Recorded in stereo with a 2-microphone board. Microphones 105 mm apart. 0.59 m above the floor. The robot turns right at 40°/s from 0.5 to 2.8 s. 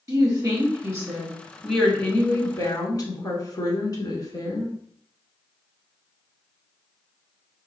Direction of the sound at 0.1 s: 40° right.